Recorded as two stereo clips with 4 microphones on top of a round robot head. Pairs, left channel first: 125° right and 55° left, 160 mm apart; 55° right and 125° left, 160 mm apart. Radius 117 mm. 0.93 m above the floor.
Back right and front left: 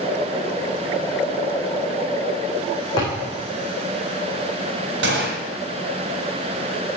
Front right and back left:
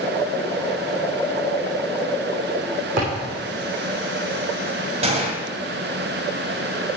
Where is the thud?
170° left, 6 m.